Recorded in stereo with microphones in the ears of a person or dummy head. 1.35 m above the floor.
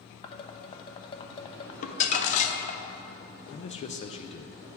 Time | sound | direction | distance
0.2 | dishes clattering | 30° left (ahead or behind) | 0.7 m
1.8 | crumpling | 40° left (ahead or behind) | 0.6 m
3.5 | a man speaking | 35° left (ahead or behind) | 0.5 m